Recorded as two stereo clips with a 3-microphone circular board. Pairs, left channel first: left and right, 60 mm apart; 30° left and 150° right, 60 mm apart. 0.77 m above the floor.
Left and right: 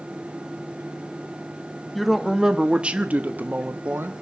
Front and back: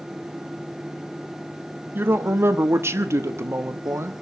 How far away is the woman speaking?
About 1.2 m.